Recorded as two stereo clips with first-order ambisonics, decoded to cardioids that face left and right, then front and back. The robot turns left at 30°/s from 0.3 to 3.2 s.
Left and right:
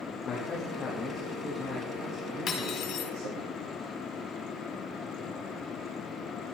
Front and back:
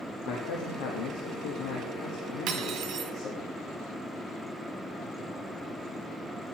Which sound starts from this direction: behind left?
Cutlery clinking, at 2.5 s.